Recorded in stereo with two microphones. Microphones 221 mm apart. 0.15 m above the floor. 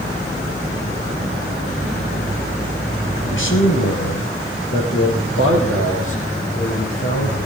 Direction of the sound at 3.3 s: 60° left (ahead or behind).